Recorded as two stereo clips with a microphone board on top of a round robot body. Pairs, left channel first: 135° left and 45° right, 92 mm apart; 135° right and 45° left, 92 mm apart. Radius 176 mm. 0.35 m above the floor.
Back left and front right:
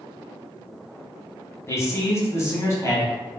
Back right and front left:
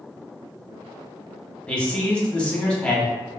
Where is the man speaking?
155° left, 1.1 m.